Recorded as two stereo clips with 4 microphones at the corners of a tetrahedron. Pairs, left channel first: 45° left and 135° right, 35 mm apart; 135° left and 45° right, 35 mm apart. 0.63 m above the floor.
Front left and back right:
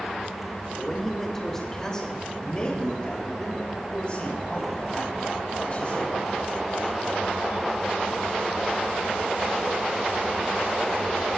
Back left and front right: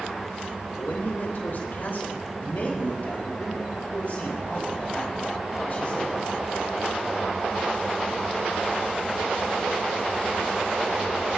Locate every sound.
0.8 s a man speaking: 130° left, 3 m; by 6.1 s 90° left, 5.5 m